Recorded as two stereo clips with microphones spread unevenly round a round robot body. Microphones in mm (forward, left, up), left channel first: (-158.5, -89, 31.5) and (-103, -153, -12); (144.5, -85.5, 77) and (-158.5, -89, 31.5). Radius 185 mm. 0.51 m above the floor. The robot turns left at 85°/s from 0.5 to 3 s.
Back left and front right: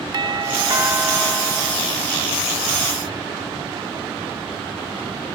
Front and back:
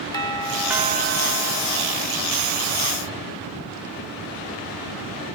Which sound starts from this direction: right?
A doorbell, at 0.1 s.